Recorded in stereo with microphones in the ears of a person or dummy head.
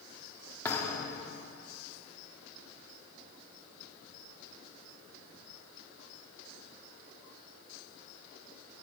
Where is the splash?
I don't hear a splash.